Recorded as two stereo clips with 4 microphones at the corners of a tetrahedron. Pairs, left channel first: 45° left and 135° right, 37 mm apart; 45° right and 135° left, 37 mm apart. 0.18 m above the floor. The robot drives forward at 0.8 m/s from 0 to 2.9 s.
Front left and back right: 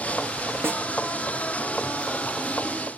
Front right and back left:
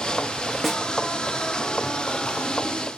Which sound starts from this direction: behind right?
A snare drum, at 0.6 s.